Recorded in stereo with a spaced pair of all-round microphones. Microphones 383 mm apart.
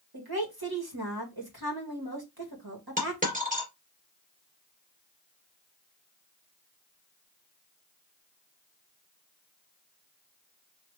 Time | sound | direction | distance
0.1 | a woman speaking | 70° right (ahead or behind) | 1.7 m
3.0 | a dropped coin | 20° right (ahead or behind) | 2.5 m